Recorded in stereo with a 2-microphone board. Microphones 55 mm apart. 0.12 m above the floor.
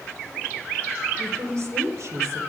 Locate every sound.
1.2 s a woman speaking: 60° right (ahead or behind), 3 m